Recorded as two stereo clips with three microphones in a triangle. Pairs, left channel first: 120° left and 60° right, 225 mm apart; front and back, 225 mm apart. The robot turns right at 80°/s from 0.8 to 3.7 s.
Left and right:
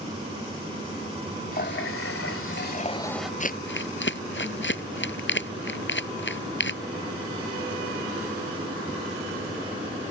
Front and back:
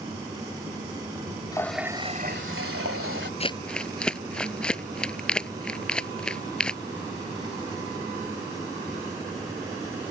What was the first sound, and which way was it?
A running tap, 70° left.